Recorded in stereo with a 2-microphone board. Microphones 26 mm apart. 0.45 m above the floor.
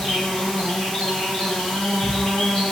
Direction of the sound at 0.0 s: 40° left (ahead or behind).